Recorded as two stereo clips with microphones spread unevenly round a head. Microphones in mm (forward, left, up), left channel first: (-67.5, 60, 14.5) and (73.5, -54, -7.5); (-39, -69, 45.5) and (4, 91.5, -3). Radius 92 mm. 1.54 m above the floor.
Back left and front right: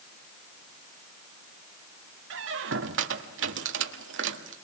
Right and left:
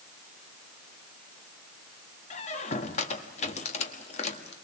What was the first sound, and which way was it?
A squeak, 60° right.